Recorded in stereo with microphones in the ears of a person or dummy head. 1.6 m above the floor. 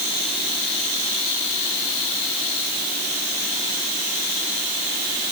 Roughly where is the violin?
No violin in this recording.